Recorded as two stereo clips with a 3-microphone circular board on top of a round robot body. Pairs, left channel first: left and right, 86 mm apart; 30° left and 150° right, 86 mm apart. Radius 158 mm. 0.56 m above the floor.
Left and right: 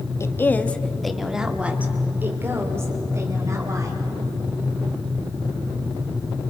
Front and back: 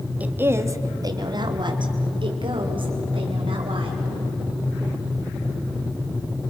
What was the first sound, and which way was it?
A woman speaking, 140° left.